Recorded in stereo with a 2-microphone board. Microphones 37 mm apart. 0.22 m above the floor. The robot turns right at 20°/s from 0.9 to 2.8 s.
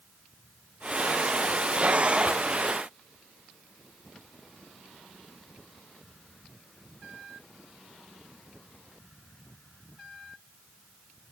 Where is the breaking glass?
I don't hear breaking glass.